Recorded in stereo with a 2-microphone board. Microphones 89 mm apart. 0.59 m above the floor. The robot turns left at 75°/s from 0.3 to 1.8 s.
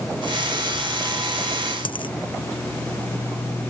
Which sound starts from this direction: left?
A dropped coin, at 1.9 s.